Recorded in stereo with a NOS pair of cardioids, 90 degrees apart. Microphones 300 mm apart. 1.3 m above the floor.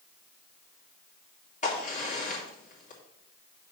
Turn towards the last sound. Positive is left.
turn(degrees=25)